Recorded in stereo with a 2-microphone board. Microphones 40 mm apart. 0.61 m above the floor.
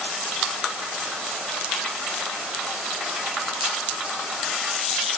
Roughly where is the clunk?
No clunk in this recording.